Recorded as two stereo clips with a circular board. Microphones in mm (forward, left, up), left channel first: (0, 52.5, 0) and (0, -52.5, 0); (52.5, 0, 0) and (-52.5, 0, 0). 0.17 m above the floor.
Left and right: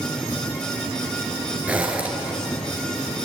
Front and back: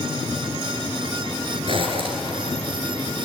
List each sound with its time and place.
1.7 s a zipper: 165° right, 3.5 m